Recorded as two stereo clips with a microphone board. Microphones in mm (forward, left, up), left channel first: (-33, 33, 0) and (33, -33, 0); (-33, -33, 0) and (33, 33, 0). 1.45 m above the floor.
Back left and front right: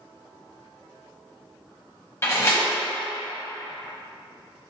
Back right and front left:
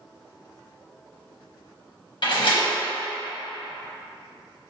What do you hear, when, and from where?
2.2 s a door slam: 165° right, 1.0 m